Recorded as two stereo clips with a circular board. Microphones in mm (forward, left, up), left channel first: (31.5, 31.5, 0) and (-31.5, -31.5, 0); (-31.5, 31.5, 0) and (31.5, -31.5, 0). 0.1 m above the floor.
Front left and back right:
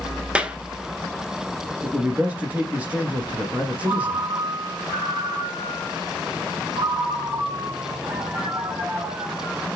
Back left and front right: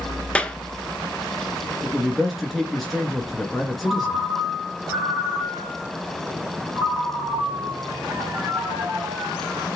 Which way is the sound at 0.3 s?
175° right.